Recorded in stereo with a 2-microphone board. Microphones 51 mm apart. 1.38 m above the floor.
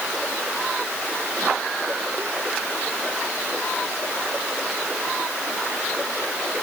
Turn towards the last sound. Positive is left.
No sound to turn to.